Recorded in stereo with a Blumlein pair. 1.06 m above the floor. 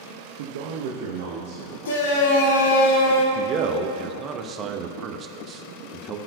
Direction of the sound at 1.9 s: 60° left.